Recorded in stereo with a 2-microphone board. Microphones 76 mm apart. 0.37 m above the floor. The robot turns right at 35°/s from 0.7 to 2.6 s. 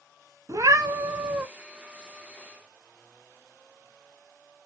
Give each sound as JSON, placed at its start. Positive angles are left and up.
{"t": 0.5, "sound": "a cat meowing", "side_deg": -50, "distance_m": 0.5}